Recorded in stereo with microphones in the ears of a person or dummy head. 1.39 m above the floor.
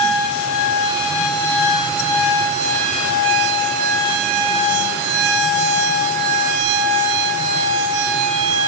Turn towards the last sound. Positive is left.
No sound to turn to.